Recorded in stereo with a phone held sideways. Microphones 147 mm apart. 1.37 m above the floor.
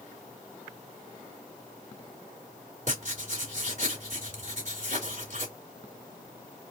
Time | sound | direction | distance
2.9 | writing | 60° right (ahead or behind) | 3 m